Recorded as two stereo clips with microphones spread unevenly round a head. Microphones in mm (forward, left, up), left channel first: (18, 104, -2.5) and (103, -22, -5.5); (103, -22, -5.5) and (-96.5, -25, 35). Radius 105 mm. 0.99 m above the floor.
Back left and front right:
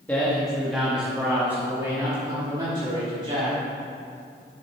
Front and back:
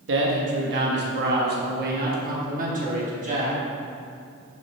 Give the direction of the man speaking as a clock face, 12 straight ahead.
5 o'clock.